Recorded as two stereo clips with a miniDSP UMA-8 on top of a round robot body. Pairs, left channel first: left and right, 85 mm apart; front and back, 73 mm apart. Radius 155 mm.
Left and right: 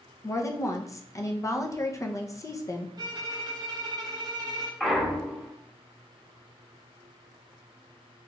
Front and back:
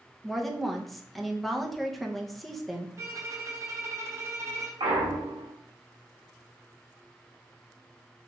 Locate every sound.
0.2 s a woman speaking: 85° left, 0.7 m
3.0 s a violin: 130° right, 0.8 m
4.8 s a clunk: 175° left, 0.7 m